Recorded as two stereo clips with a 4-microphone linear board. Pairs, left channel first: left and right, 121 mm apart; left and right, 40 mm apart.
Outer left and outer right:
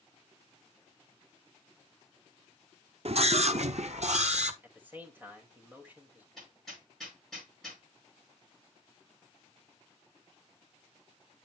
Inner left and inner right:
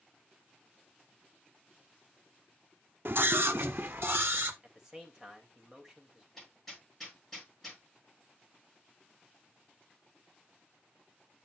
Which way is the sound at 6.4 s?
5° left (ahead or behind).